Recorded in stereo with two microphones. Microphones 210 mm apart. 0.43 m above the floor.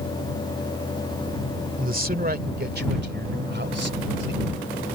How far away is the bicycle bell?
No bicycle bell in this recording.